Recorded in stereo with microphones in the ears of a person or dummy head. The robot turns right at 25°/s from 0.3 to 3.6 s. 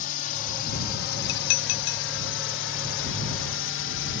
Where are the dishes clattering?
60° left (ahead or behind); by 2.0 s 75° left (ahead or behind).